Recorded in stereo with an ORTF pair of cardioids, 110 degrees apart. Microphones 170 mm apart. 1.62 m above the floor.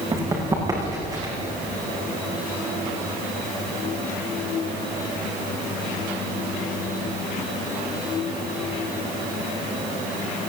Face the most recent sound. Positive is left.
turn(degrees=-25)